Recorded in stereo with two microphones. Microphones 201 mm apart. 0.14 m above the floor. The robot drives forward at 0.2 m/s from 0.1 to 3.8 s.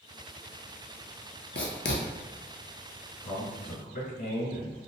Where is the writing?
65° left (ahead or behind), 0.6 m; by 2.0 s 70° left (ahead or behind), 0.6 m.